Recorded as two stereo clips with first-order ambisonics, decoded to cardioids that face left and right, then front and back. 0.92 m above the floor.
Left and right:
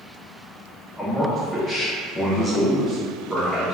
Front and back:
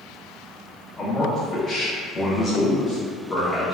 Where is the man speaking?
25° left, 0.6 m.